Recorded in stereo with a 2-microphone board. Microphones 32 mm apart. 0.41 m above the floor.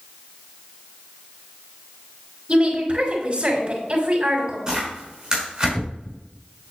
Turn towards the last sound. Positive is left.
turn(degrees=-25)  # may be behind; listen again after turning